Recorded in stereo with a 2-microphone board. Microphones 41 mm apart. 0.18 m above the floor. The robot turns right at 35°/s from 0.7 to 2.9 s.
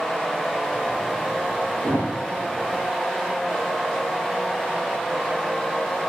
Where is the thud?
75° right (ahead or behind), 7.5 m; by 2.1 s 65° right (ahead or behind), 7.5 m.